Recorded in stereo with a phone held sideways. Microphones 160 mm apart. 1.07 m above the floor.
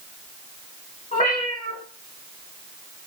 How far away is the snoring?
I don't hear snoring.